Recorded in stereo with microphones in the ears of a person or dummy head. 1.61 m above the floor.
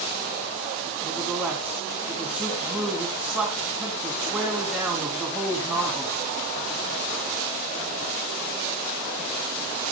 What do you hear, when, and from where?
1.0 s a man speaking: 5° right (ahead or behind), 3 m